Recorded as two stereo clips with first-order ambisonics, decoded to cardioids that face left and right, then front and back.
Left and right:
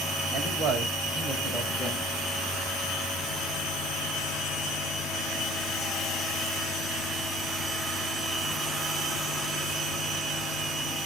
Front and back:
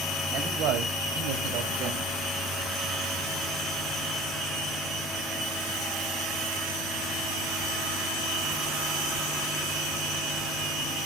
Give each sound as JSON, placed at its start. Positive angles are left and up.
{"t": 0.3, "sound": "a man speaking", "azimuth_deg": -140, "distance_m": 2.5}